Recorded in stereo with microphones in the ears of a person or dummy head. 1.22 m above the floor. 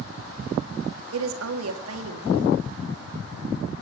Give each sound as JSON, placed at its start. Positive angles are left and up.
{"t": 1.1, "sound": "a woman speaking", "side_deg": -85, "distance_m": 1.8}